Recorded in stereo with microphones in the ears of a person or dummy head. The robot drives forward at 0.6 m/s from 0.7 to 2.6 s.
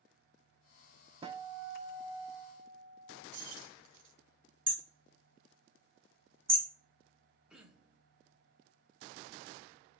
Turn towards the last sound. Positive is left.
turn(degrees=0)  # may be behind; listen again after turning